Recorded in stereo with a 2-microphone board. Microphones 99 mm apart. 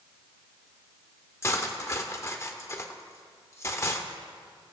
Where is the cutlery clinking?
30° left (ahead or behind), 0.6 m.